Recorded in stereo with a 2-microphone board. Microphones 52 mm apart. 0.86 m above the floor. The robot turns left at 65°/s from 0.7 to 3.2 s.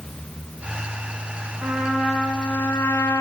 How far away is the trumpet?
About 8 m.